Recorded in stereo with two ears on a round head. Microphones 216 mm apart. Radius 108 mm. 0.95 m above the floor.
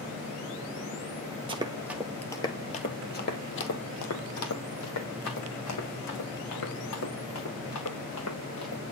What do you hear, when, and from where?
1.5 s running footsteps: 25° right (ahead or behind), 1.3 m; by 8.8 s 80° left, 6 m